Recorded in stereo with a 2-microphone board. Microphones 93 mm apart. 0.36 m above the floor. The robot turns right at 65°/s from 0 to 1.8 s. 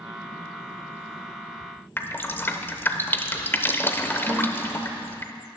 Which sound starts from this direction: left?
Dripping, at 2.0 s.